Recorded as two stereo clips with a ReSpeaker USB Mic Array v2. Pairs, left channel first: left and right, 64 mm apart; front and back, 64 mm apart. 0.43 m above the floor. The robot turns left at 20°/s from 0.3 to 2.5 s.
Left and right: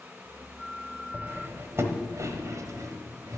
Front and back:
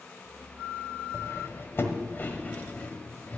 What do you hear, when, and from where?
1.1 s cutlery clinking: 35° right, 1.2 m; by 3.4 s 60° right, 1.2 m